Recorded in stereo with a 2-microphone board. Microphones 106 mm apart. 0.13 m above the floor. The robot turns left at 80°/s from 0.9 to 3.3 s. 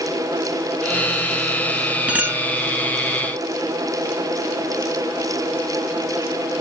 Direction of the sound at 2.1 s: 20° right.